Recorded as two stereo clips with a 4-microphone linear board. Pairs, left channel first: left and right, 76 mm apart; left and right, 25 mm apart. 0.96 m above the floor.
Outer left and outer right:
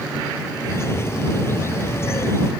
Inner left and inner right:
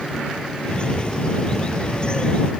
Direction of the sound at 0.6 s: 35° left (ahead or behind).